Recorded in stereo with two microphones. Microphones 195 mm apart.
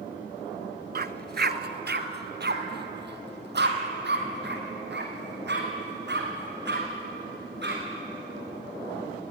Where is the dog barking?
55° right (ahead or behind), 0.8 m; by 7.8 s 60° right (ahead or behind), 5.5 m.